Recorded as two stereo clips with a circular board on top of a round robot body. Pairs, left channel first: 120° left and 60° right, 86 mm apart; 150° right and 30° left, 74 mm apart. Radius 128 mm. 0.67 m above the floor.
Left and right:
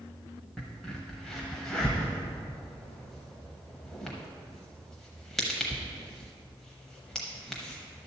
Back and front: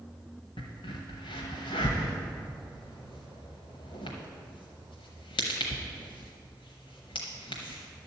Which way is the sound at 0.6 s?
155° right.